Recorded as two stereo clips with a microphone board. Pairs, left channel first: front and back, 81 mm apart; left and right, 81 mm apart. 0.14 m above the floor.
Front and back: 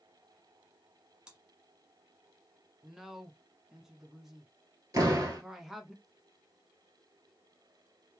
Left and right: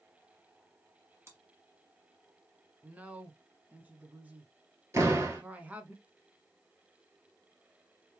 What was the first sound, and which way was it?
Chewing, 110° right.